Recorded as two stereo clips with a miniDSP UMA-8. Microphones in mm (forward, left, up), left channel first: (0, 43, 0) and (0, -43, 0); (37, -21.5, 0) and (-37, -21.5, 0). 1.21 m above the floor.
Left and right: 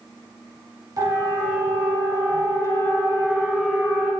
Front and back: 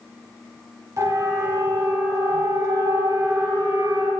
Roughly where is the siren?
Behind right.